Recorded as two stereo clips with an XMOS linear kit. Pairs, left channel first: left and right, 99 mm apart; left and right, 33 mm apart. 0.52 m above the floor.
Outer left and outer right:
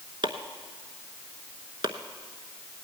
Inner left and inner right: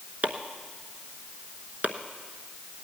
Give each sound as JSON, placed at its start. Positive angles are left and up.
{"t": 0.2, "sound": "chopping", "side_deg": -50, "distance_m": 1.0}